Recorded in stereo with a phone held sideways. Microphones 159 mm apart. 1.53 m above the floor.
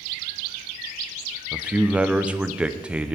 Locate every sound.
1.5 s a man speaking: 5° right (ahead or behind), 0.8 m